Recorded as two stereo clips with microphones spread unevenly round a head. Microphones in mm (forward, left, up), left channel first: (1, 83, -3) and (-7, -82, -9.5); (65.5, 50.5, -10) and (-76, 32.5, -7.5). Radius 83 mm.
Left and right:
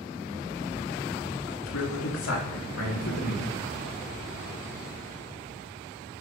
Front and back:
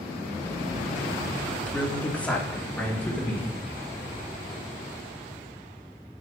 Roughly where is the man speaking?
Left.